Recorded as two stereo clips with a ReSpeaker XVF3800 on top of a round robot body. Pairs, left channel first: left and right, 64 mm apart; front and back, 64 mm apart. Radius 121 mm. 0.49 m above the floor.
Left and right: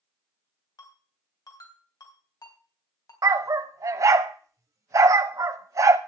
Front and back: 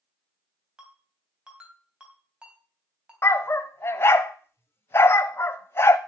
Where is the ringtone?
105° left, 3 m.